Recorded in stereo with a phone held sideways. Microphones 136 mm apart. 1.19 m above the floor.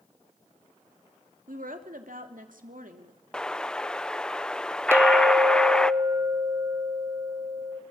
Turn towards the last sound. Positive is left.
turn(degrees=-15)  # may be behind; listen again after turning